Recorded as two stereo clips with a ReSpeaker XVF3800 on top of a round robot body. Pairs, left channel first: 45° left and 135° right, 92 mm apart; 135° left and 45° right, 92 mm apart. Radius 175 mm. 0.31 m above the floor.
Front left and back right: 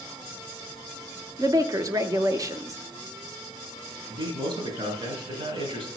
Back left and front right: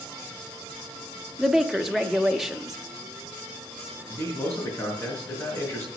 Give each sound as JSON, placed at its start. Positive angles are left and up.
{"t": 1.4, "sound": "a woman speaking", "azimuth_deg": -130, "distance_m": 1.2}
{"t": 4.1, "sound": "a man speaking", "azimuth_deg": -165, "distance_m": 5.0}